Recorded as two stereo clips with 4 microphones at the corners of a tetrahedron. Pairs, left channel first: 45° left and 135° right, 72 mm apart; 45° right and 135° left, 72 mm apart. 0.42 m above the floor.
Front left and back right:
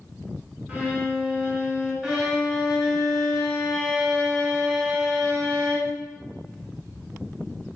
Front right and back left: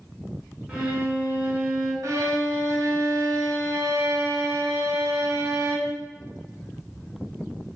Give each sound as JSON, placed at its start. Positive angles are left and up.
{"t": 0.7, "sound": "a violin", "azimuth_deg": -170, "distance_m": 1.3}
{"t": 2.0, "sound": "a violin", "azimuth_deg": 150, "distance_m": 1.4}